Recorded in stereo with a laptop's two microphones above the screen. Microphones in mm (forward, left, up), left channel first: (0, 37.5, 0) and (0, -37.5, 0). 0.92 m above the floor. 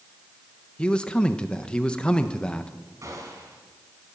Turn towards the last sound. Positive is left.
turn(degrees=-50)  # may be behind; listen again after turning